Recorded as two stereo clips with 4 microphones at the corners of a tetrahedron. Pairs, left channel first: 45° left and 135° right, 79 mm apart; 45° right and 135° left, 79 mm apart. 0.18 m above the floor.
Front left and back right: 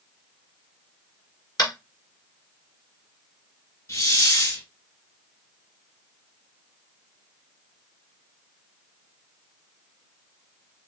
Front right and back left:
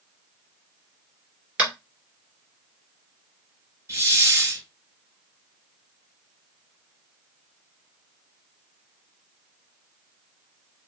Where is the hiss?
85° left, 2.5 m.